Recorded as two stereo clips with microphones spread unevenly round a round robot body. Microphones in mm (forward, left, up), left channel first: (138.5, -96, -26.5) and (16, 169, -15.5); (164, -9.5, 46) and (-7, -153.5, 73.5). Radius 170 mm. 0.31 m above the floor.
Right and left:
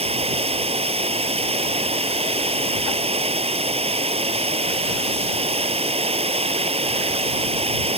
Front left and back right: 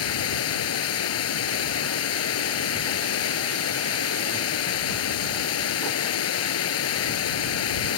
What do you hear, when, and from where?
0.0 s running water: 45° left